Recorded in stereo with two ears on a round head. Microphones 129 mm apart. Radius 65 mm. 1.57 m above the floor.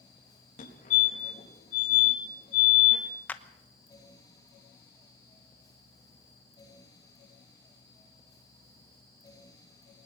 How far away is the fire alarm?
About 4.5 m.